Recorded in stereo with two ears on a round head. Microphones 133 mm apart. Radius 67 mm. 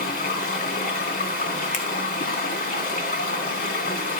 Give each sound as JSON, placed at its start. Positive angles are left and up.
{"t": 0.0, "sound": "running water", "side_deg": 60, "distance_m": 2.5}
{"t": 1.7, "sound": "a finger snap", "side_deg": 50, "distance_m": 1.7}